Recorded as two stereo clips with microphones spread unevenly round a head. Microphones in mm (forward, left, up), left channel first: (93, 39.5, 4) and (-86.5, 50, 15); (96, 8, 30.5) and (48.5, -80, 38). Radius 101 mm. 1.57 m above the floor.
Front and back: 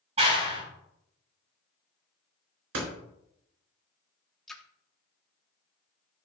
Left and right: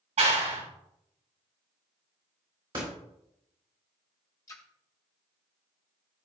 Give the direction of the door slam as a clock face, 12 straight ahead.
6 o'clock.